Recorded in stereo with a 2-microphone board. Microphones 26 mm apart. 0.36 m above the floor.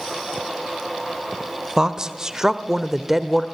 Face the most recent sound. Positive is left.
turn(degrees=-5)  # may be behind; listen again after turning